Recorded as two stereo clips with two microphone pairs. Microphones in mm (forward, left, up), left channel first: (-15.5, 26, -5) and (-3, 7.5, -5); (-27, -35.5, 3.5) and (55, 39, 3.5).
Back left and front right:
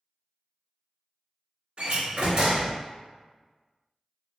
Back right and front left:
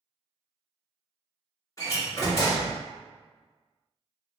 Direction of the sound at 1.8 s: 85° right.